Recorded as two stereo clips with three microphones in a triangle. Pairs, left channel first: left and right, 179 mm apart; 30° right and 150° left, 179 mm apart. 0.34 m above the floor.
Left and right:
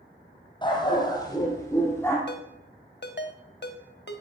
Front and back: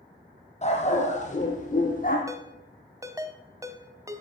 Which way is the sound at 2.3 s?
80° left.